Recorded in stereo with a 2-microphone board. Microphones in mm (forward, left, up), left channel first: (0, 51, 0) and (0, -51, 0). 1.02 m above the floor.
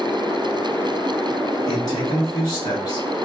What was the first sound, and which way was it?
A man speaking, 35° left (ahead or behind).